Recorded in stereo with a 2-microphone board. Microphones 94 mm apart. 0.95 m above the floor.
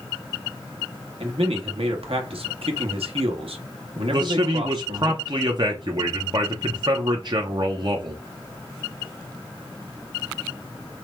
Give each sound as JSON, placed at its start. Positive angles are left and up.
{"t": 1.2, "sound": "a man speaking", "side_deg": -75, "distance_m": 1.0}
{"t": 4.1, "sound": "a man speaking", "side_deg": -50, "distance_m": 0.6}